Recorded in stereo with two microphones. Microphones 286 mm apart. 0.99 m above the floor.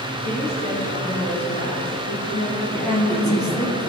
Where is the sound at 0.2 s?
40° left (ahead or behind), 2.5 m.